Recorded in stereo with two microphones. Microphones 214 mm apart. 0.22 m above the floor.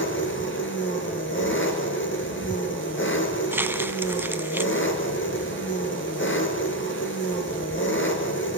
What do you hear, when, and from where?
0.0 s an engine running: 65° left (ahead or behind), 2.5 m
3.5 s crumpling: 10° right (ahead or behind), 0.8 m